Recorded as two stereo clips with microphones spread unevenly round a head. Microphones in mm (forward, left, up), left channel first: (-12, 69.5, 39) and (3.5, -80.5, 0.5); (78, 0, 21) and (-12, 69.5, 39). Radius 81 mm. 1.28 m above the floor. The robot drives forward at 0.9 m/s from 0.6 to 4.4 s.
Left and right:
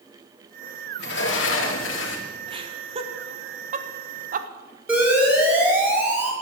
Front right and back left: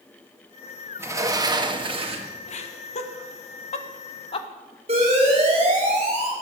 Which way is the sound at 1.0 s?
75° left.